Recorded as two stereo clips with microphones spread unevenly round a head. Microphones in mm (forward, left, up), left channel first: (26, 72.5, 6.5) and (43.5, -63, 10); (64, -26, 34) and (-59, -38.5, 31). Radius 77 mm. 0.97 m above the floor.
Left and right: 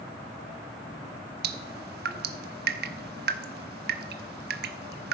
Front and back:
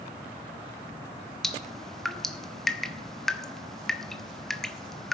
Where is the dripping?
80° right, 1.0 m.